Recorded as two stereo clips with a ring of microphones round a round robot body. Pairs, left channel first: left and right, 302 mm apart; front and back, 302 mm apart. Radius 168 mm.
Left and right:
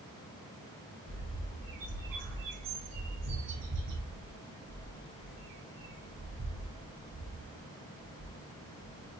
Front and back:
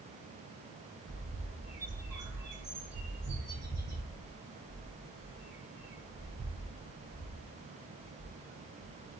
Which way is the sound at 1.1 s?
100° right.